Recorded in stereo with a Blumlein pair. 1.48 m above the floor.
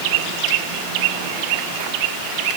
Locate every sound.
Only background noise.